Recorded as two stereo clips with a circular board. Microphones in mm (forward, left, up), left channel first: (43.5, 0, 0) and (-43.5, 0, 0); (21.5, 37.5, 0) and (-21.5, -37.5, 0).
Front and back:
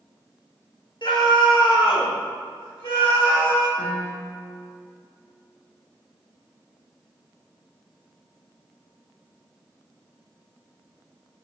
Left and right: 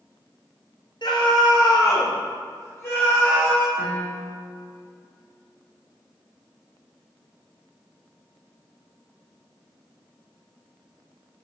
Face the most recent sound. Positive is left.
turn(degrees=0)